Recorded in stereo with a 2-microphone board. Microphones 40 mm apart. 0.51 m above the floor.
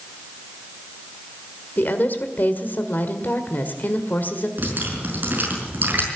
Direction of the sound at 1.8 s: 50° left (ahead or behind).